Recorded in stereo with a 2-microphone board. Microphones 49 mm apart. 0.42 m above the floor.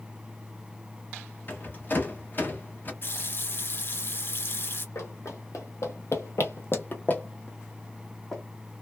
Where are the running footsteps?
65° left (ahead or behind), 1.2 m; by 8.4 s 10° left (ahead or behind), 1.3 m.